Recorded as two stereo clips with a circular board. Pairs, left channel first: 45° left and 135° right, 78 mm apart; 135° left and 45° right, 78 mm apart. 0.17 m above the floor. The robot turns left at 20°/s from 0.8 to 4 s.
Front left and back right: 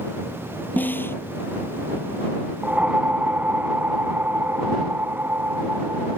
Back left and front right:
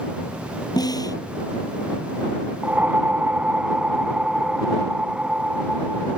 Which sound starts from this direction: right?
A whoosh, at 2.6 s.